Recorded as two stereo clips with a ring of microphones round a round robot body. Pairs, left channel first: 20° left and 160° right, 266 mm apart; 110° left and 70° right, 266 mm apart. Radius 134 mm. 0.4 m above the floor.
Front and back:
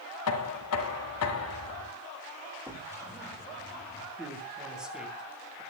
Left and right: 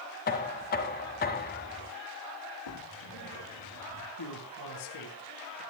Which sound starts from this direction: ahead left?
Knocking, at 0.3 s.